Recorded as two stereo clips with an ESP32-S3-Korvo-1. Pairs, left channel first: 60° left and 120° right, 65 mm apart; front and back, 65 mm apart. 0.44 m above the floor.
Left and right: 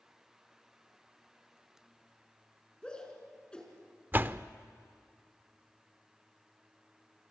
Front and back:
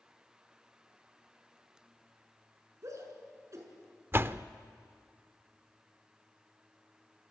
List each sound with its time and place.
2.8 s a shout: 135° left, 5.5 m
4.1 s a door slam: 155° right, 0.5 m